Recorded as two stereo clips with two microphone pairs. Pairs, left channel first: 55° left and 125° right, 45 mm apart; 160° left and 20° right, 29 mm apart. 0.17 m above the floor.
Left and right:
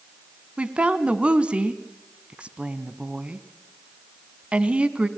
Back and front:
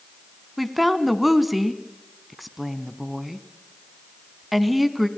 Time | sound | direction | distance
0.6 | a woman speaking | 105° right | 1.1 m